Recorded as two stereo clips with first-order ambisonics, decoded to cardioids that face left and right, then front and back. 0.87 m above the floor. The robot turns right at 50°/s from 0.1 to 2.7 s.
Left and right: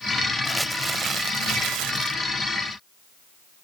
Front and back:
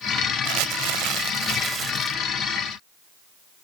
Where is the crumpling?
Straight behind; by 2.2 s 95° right.